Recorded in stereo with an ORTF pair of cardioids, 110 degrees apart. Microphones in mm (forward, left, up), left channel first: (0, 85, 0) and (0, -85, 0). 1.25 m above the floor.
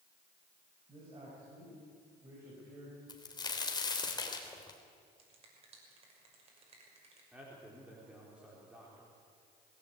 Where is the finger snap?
35° right, 6 m.